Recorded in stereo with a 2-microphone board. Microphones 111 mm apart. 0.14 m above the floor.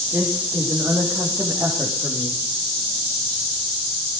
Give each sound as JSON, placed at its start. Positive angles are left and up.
{"t": 0.1, "sound": "a woman speaking", "side_deg": -15, "distance_m": 6.5}